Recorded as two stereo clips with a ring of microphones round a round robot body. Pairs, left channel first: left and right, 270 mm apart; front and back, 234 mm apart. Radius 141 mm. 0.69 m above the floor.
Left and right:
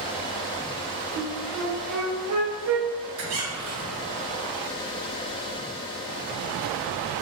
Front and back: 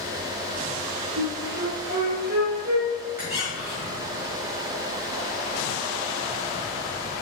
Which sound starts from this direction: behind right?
A flute, at 1.2 s.